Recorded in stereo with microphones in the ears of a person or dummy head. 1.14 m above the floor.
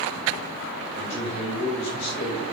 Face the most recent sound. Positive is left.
turn(degrees=45)  # may be behind; listen again after turning